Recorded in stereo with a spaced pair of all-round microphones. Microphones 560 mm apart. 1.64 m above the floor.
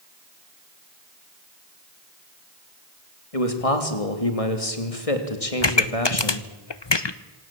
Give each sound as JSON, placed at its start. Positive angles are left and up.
{"t": 3.3, "sound": "a man speaking", "side_deg": 80, "distance_m": 3.0}
{"t": 5.6, "sound": "a pop", "side_deg": 50, "distance_m": 1.0}